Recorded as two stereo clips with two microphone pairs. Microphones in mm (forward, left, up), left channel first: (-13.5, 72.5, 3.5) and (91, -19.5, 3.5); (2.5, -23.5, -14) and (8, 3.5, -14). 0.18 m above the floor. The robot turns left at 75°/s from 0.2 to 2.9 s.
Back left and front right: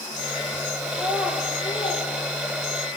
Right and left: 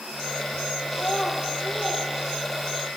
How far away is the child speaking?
About 2.5 m.